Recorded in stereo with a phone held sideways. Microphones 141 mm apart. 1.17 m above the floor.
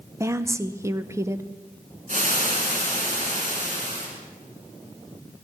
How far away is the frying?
About 3.5 m.